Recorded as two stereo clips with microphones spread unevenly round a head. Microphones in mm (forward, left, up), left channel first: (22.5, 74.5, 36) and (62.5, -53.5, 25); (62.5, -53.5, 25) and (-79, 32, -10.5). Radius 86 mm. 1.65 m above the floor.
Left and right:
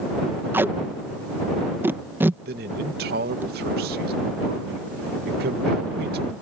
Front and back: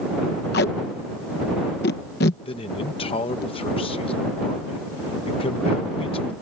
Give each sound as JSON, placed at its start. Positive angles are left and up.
{"t": 0.5, "sound": "tape being pulled", "azimuth_deg": 5}
{"t": 2.5, "sound": "a man speaking", "azimuth_deg": -90}